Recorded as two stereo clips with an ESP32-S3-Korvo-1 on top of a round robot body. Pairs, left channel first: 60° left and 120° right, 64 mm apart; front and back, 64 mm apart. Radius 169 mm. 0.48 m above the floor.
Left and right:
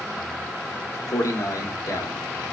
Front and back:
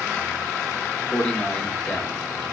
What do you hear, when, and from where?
1.1 s a man speaking: 70° left, 1.5 m; by 2.5 s 80° left, 2 m